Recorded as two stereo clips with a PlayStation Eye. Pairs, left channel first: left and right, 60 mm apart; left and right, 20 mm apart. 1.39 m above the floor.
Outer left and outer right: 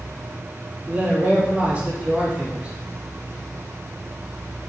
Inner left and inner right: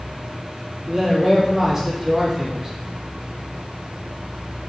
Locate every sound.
0.9 s a man speaking: 20° right (ahead or behind), 3 m